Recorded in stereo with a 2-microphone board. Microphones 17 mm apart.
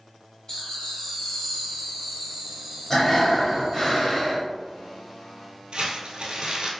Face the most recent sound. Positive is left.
turn(degrees=-65)  # may be behind; listen again after turning